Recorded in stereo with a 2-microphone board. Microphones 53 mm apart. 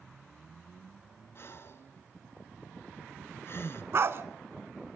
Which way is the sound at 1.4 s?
50° left (ahead or behind).